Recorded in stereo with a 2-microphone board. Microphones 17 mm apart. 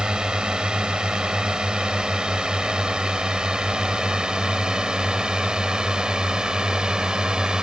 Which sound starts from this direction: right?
A drone, at 0.0 s.